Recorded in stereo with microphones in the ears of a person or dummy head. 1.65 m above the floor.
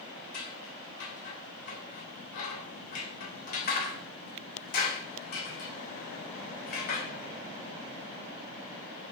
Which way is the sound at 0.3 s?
55° left (ahead or behind).